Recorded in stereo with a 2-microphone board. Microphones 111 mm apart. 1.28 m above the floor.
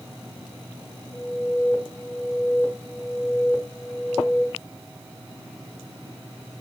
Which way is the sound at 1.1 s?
35° left (ahead or behind).